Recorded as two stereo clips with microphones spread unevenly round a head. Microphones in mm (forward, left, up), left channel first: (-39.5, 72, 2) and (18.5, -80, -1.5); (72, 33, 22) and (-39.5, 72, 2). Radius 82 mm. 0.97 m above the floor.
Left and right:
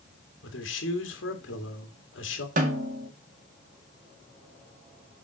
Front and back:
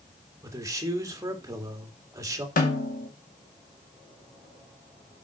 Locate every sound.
0.4 s a man speaking: 100° left, 2.5 m
2.6 s a snare drum: 25° right, 2 m